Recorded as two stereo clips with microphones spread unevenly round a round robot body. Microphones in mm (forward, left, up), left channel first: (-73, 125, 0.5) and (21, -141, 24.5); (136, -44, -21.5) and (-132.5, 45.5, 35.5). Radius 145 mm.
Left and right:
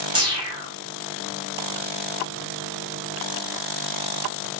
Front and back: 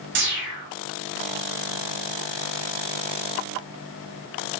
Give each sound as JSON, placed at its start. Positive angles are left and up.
{"t": 0.1, "sound": "a whoosh", "azimuth_deg": -145, "distance_m": 7.5}